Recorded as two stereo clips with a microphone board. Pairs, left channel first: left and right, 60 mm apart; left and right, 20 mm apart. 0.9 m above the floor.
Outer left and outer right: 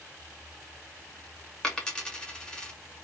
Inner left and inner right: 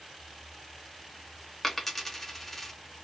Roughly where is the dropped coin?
Centre.